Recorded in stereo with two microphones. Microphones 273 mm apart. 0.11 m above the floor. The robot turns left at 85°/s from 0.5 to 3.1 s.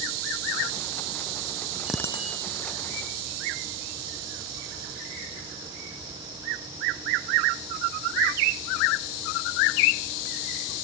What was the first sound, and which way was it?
A bicycle bell, 175° right.